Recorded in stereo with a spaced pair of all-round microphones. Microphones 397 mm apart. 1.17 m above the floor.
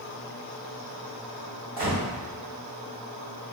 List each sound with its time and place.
1.8 s a gunshot: 80° right, 1.7 m